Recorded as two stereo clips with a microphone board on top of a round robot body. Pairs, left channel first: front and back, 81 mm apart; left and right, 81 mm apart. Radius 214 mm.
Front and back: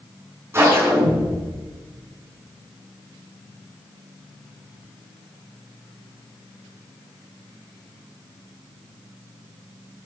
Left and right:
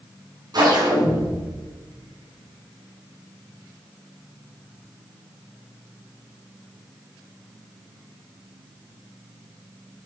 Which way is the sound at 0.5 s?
125° right.